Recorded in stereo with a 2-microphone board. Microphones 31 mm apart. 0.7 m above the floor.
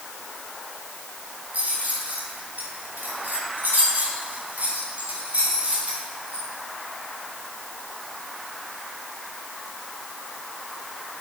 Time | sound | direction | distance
1.5 | keys jangling | 60° right (ahead or behind) | 4 m